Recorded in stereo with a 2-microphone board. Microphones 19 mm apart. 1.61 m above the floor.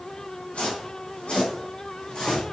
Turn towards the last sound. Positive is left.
turn(degrees=60)  # may be behind; listen again after turning